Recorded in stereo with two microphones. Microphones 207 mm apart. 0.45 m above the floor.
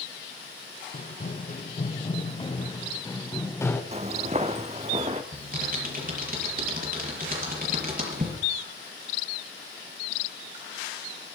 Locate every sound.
0.9 s running footsteps: 45° left (ahead or behind), 2 m; by 3.8 s 10° left (ahead or behind), 2.5 m
3.9 s footsteps: 30° right (ahead or behind), 0.8 m
5.3 s typing on a keyboard: 45° right (ahead or behind), 6 m